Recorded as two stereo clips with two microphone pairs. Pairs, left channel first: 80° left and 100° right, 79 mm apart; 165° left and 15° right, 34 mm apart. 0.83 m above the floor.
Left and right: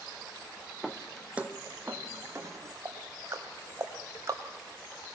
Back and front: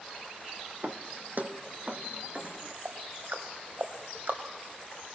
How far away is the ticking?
About 2 m.